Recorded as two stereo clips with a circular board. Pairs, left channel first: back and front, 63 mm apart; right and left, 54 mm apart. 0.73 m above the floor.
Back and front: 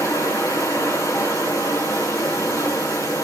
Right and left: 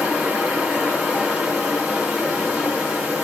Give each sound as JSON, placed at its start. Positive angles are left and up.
{"t": 0.0, "sound": "running water", "azimuth_deg": 170, "distance_m": 4.5}